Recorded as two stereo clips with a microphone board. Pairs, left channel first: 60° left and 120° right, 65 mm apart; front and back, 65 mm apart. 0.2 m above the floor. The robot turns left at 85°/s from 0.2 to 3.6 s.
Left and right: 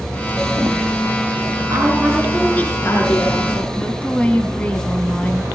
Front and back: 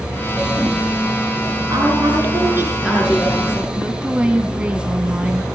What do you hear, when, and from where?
1.7 s a woman speaking: 155° right, 7.5 m; by 3.7 s 45° left, 7.5 m
3.8 s a woman speaking: 115° left, 1.5 m